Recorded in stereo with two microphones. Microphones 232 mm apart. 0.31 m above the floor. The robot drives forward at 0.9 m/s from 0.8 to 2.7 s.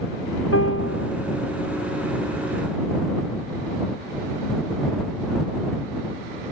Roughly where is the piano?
Left.